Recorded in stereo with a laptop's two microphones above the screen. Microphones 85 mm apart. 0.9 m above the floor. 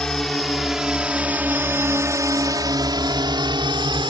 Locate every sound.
0.0 s a drone: 5° left (ahead or behind); by 4.1 s 65° right (ahead or behind)